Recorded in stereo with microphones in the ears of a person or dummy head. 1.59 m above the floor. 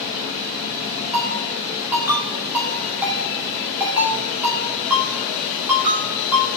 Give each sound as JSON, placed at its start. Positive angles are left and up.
{"t": 1.1, "sound": "a ringtone", "side_deg": -5, "distance_m": 2.0}